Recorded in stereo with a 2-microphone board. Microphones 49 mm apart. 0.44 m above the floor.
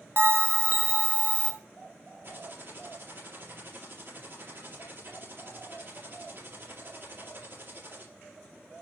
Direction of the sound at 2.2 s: 50° right (ahead or behind).